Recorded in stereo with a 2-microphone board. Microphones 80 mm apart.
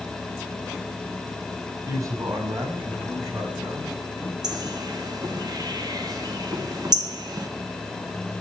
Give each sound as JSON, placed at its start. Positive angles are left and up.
{"t": 1.9, "sound": "a man speaking", "side_deg": -45, "distance_m": 5.0}
{"t": 4.4, "sound": "a bird", "side_deg": -55, "distance_m": 1.6}